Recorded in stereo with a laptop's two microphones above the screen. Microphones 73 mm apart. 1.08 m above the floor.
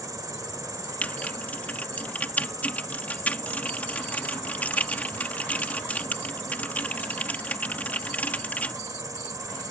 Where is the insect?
55° right (ahead or behind).